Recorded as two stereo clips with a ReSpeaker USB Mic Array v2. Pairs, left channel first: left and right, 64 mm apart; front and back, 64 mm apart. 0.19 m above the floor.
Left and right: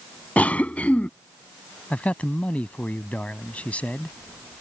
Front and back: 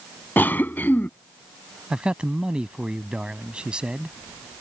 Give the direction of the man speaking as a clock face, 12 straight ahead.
8 o'clock.